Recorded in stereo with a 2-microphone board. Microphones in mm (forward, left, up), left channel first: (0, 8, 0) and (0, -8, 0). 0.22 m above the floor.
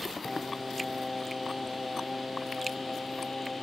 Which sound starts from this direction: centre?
Singing, at 0.2 s.